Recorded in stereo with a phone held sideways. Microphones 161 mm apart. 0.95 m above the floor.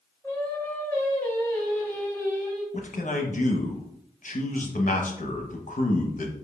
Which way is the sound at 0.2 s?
10° left (ahead or behind).